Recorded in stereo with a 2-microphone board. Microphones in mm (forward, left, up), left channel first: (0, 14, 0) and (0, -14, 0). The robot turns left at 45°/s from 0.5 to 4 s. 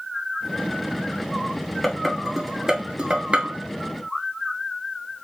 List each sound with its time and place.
1.8 s dishes clattering: 5° left (ahead or behind), 1.3 m; by 3.5 s 50° right (ahead or behind), 1.3 m